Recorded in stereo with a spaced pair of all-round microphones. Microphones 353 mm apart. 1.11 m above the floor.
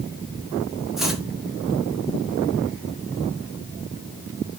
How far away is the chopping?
About 1.3 m.